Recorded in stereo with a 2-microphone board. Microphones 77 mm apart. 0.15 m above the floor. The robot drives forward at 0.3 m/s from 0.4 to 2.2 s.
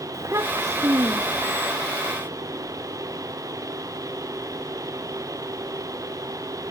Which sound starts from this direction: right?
A child speaking, at 0.1 s.